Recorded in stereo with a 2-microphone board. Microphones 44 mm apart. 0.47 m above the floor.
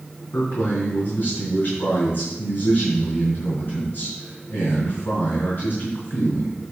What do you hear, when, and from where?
0.3 s a man speaking: 55° left (ahead or behind), 3.5 m